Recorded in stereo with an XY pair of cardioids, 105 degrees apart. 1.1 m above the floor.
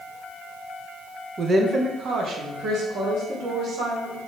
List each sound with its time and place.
1.4 s a woman speaking: 35° right, 0.6 m; by 4.2 s 75° right, 2 m